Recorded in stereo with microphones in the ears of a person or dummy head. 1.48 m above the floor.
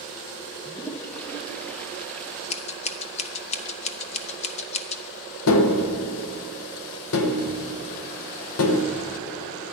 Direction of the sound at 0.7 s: 5° left (ahead or behind).